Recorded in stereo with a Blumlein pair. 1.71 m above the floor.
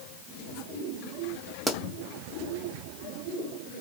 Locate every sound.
1.7 s a pop: straight ahead, 0.9 m